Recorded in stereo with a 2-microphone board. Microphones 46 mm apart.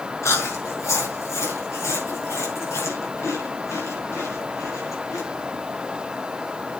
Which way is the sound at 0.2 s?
85° left.